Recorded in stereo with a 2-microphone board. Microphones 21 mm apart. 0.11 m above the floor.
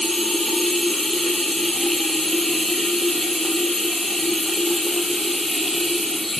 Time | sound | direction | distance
0.0 | running water | 5° left (ahead or behind) | 2.5 m